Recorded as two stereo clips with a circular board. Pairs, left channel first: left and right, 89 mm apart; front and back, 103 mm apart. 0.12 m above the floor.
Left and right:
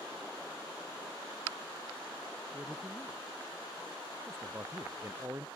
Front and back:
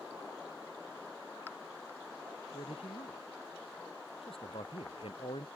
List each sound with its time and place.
2.5 s a man speaking: 20° right; by 5.5 s 30° right